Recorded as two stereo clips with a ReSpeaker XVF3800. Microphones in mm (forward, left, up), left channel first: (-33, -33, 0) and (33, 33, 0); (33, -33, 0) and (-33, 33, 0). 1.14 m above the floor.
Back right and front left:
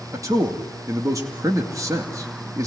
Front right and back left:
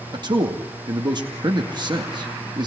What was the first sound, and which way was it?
A man speaking, 100° left.